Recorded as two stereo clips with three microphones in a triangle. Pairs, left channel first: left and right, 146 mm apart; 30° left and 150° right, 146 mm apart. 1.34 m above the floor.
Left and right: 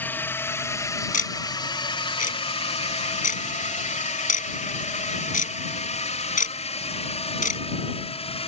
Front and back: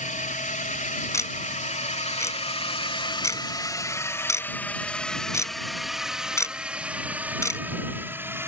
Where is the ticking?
100° left.